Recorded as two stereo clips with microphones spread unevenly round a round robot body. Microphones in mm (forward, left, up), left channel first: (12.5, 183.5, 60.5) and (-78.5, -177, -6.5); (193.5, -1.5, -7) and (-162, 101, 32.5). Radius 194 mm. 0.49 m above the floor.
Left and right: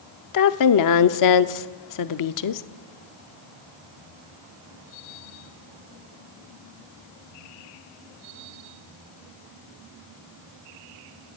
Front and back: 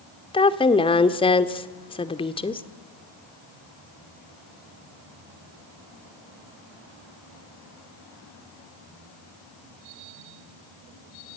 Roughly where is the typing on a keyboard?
I don't hear typing on a keyboard.